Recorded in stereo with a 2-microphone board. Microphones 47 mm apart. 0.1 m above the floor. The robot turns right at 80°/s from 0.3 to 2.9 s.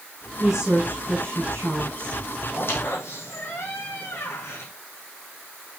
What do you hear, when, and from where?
0.4 s a woman speaking: 175° right, 4 m; by 2.2 s 25° right, 4 m
2.5 s a squeak: 45° left (ahead or behind), 3.5 m; by 4.7 s 70° left (ahead or behind), 3.5 m